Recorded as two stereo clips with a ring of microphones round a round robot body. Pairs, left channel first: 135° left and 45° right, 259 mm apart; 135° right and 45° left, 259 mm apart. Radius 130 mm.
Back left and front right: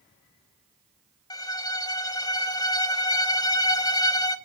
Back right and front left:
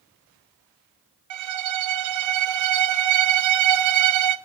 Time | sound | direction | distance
1.3 | a violin | 60° left | 1.1 m